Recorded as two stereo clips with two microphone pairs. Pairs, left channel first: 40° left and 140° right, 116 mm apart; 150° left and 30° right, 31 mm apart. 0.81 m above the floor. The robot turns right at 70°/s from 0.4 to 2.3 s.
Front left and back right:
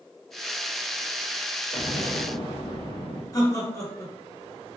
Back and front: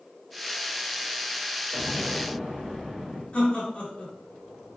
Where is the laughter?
100° left, 2 m.